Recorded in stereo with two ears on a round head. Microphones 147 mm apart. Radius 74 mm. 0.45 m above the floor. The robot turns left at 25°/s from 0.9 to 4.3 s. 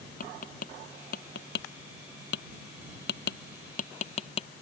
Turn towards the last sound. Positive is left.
turn(degrees=35)  # may be behind; listen again after turning